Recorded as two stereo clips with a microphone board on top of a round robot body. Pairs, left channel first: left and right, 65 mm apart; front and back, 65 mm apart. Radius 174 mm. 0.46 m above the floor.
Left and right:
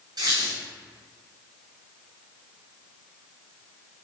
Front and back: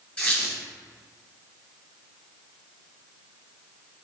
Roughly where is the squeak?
Right.